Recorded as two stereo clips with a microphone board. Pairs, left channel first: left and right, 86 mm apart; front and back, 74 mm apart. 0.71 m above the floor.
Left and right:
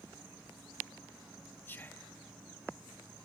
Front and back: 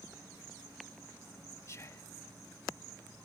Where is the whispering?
35° left, 0.6 m.